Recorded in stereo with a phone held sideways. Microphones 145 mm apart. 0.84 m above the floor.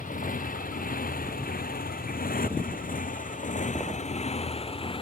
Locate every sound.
0.0 s a motorcycle: 70° left (ahead or behind); by 5.0 s 35° left (ahead or behind)